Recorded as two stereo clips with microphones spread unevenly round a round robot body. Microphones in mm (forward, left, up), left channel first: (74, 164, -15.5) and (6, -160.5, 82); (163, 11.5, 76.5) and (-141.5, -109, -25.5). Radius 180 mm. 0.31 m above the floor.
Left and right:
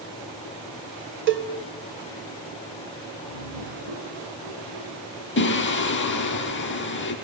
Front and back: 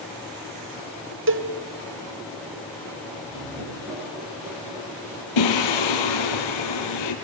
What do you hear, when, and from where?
1.3 s a cowbell: 165° right, 1.7 m
3.3 s laughter: 85° right, 6 m
5.4 s singing: 20° left, 3 m